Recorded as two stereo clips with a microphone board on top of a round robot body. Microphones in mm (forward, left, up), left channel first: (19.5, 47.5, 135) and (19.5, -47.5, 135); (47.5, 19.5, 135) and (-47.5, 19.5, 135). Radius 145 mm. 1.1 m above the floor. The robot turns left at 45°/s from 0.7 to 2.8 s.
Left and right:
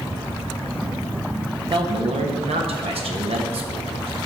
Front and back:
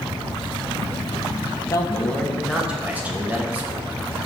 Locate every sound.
1.7 s a man speaking: 55° right, 1.3 m; by 3.9 s 105° right, 1.3 m